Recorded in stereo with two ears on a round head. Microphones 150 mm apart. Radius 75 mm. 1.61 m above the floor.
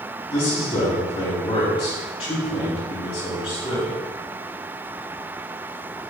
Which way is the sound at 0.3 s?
35° left (ahead or behind).